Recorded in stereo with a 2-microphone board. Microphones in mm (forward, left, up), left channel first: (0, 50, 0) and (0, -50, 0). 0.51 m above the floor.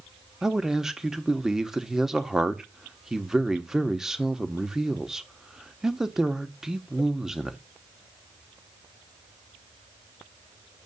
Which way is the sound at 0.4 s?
5° right (ahead or behind).